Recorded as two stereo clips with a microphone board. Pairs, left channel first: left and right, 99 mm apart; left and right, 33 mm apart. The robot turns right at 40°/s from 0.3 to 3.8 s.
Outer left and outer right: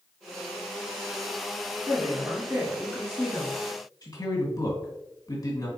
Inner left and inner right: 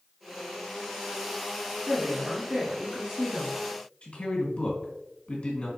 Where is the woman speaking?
50° right, 3 m; by 3.5 s 15° left, 3 m.